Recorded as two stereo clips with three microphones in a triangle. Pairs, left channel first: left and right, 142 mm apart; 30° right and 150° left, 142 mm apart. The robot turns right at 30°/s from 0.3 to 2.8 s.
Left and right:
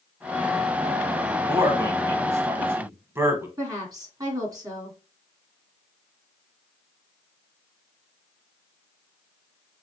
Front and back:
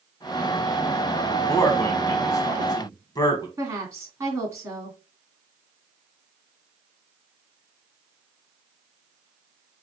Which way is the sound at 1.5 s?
75° right.